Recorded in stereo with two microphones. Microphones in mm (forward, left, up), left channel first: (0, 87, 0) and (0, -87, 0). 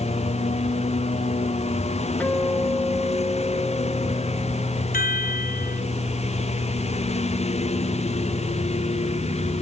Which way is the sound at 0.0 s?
35° left (ahead or behind).